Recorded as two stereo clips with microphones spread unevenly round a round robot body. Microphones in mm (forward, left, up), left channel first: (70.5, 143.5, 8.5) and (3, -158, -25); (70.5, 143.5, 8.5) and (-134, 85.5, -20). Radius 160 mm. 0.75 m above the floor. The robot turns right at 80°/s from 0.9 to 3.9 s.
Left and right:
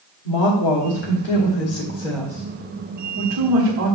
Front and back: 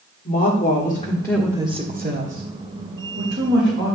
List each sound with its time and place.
0.2 s a woman speaking: 70° left, 1.6 m; by 4.0 s 50° right, 1.6 m